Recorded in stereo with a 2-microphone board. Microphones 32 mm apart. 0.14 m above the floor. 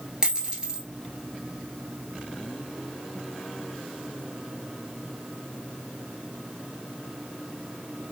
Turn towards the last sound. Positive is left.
turn(degrees=-25)  # may be behind; listen again after turning